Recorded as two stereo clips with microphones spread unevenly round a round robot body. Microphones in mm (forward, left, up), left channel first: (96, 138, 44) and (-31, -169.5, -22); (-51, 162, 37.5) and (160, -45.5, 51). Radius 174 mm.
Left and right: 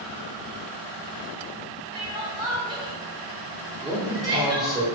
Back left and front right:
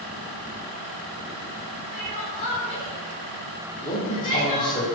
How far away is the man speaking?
About 1.2 m.